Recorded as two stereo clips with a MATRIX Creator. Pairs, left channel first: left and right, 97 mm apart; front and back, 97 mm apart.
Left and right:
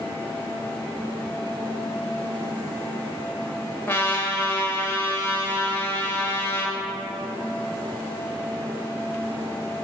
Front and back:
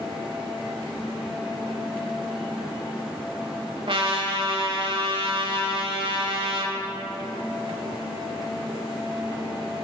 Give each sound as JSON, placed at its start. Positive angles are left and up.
{"t": 3.9, "sound": "a trumpet", "azimuth_deg": 155, "distance_m": 0.8}